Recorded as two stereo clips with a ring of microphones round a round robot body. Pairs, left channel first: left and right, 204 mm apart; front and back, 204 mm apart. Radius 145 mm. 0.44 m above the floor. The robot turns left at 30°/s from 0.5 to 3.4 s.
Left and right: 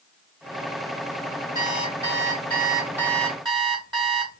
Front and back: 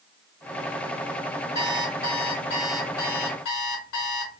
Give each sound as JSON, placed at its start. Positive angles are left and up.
{"t": 1.6, "sound": "an alarm clock", "azimuth_deg": 35, "distance_m": 1.2}